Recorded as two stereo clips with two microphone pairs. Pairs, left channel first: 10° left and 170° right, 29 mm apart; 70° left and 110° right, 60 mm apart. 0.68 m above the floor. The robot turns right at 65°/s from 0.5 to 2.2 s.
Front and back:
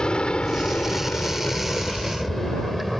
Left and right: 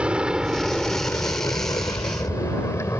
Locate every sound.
0.0 s an aircraft: 40° right; by 3.0 s 105° left